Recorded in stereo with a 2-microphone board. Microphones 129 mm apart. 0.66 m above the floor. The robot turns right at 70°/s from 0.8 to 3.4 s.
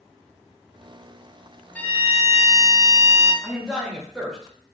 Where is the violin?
10° left (ahead or behind), 0.6 m; by 3.3 s 15° left (ahead or behind), 0.6 m.